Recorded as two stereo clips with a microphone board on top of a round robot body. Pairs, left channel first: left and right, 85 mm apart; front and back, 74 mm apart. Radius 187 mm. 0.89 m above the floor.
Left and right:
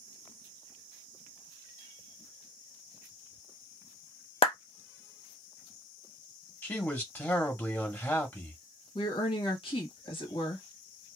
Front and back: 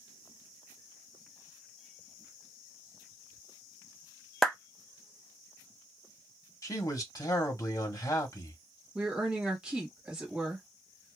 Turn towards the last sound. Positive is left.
turn(degrees=105)